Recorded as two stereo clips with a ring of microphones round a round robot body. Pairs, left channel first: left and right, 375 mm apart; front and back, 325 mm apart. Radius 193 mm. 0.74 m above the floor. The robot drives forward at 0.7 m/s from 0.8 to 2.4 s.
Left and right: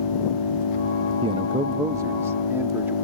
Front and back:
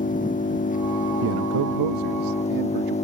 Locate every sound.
0.0 s an engine running: 65° left; by 3.0 s 70° left
1.2 s a man speaking: 160° right; by 3.0 s 175° right